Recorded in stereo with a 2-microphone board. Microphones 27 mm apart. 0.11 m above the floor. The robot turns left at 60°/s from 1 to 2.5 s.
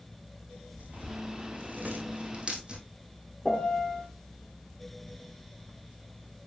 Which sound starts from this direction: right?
Tearing paper, at 0.8 s.